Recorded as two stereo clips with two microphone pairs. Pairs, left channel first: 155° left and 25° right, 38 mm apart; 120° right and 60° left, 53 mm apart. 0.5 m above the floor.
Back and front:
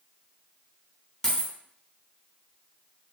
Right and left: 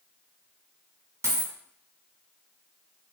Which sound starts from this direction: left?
A dropped coin, at 1.2 s.